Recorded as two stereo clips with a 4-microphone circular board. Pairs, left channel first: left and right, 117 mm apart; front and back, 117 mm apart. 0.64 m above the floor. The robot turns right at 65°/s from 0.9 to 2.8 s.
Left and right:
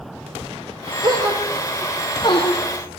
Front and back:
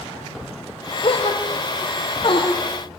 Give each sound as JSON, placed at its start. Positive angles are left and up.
{"t": 1.0, "sound": "a gasp", "azimuth_deg": -45, "distance_m": 6.0}